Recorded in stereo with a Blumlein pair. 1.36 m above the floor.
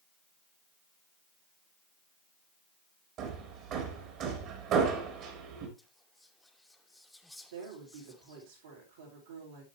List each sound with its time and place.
3.2 s hammering: 35° right, 3 m
5.8 s whispering: 5° left, 1.5 m
7.5 s a woman speaking: 60° right, 4.5 m